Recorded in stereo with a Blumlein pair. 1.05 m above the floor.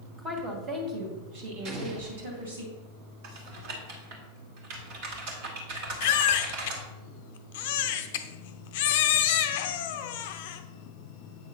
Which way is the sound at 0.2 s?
20° right.